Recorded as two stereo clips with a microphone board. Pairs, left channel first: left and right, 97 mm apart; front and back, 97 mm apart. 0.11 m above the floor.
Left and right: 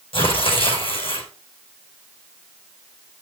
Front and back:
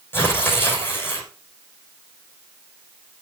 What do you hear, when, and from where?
0.1 s tearing paper: 65° left, 6.5 m